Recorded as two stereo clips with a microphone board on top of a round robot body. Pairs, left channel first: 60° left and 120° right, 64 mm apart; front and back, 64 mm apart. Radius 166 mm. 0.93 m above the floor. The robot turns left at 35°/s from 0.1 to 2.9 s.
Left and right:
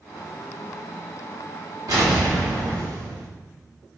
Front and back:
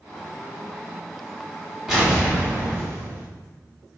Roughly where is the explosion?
Right.